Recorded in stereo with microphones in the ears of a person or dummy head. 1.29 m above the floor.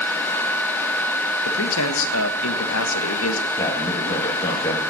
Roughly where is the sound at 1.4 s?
Left.